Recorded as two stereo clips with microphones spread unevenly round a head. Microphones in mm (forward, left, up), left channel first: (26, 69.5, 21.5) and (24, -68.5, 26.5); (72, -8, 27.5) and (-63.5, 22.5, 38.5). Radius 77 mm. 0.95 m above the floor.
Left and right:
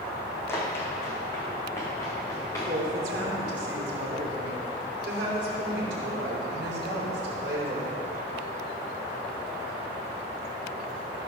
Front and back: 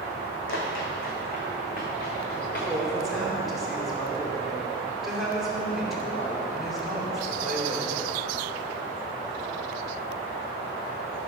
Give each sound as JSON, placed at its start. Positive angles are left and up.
{"t": 0.5, "sound": "running footsteps", "azimuth_deg": 15, "distance_m": 2.5}
{"t": 2.7, "sound": "a woman speaking", "azimuth_deg": -105, "distance_m": 2.5}